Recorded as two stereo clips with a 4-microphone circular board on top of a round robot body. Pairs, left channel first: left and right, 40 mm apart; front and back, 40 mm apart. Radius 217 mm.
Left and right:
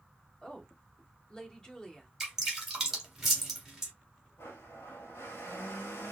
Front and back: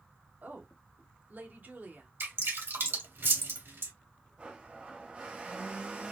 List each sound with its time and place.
0.4 s a woman speaking: 155° left, 1.9 m
2.2 s dripping: 175° right, 1.8 m
4.4 s a blender: 120° left, 0.9 m